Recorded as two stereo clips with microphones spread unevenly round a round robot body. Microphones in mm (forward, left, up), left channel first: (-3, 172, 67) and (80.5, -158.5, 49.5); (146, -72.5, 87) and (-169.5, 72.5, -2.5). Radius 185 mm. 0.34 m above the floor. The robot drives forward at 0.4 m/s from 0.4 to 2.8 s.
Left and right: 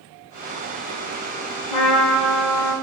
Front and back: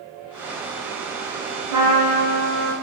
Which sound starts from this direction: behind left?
A trumpet, at 1.7 s.